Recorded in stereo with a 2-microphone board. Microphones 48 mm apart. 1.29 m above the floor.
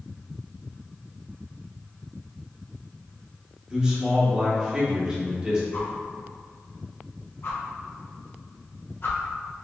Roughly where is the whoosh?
Left.